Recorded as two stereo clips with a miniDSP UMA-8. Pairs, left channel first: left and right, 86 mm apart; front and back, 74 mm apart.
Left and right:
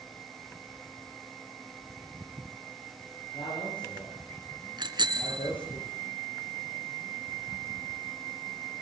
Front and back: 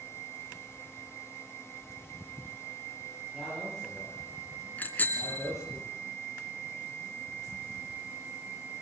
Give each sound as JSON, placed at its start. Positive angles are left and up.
{"t": 3.3, "sound": "a man speaking", "azimuth_deg": 85, "distance_m": 10.0}
{"t": 4.8, "sound": "a bicycle bell", "azimuth_deg": -70, "distance_m": 2.5}